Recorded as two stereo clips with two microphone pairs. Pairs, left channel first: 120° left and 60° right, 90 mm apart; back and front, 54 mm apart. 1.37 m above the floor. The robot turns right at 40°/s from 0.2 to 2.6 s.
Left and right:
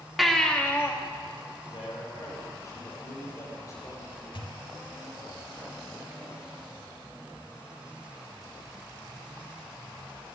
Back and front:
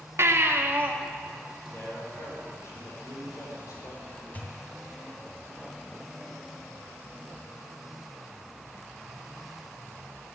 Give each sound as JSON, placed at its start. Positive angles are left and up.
{"t": 0.2, "sound": "a baby crying", "azimuth_deg": 30, "distance_m": 1.6}
{"t": 1.7, "sound": "a man speaking", "azimuth_deg": 135, "distance_m": 5.5}
{"t": 4.3, "sound": "a pop", "azimuth_deg": 120, "distance_m": 2.5}